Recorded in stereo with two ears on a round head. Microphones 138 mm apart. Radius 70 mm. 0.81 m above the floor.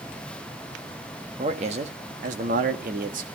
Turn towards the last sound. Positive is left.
turn(degrees=-65)  # may be behind; listen again after turning